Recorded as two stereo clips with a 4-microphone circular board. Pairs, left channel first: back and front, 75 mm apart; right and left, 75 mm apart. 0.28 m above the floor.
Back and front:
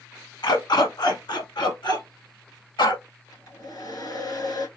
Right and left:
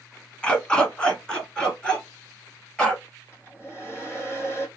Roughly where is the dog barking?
Behind.